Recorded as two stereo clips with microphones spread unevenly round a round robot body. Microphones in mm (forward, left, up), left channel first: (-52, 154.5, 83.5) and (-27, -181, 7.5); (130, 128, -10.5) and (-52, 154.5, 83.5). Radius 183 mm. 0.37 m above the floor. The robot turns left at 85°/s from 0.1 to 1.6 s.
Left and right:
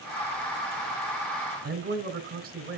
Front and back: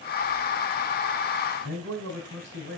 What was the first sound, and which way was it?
A man speaking, 135° right.